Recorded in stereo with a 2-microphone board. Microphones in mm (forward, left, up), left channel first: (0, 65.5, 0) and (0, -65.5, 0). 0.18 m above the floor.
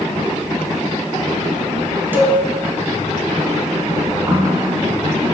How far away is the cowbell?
About 0.7 m.